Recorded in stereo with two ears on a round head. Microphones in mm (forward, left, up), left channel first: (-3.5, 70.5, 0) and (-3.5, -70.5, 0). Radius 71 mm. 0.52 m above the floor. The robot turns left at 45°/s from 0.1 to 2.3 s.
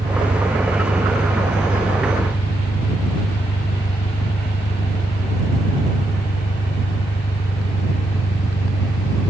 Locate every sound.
0.0 s an engine running: 145° right; by 9.3 s 115° left